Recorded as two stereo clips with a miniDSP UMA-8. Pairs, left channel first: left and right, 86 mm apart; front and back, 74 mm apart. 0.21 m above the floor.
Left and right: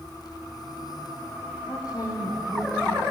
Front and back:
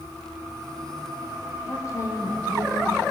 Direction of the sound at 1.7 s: 45° left.